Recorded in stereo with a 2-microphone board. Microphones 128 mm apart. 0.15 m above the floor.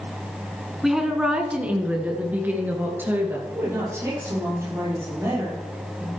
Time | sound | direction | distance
0.8 | a woman speaking | 5° right (ahead or behind) | 1.5 m
3.5 | a woman speaking | 25° right (ahead or behind) | 5 m